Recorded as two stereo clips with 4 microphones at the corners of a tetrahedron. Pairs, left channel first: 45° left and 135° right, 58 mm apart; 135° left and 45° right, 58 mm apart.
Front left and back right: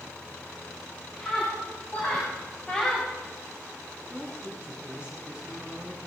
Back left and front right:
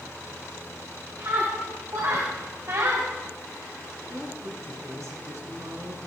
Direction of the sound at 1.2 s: 10° right.